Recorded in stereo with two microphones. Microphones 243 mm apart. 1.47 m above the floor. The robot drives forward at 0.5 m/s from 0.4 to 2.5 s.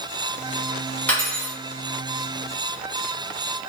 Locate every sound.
1.1 s cutlery clinking: 5° left (ahead or behind), 1.5 m